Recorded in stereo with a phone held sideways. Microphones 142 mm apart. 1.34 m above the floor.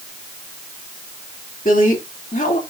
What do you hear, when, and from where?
1.6 s a woman speaking: 70° left (ahead or behind), 2.5 m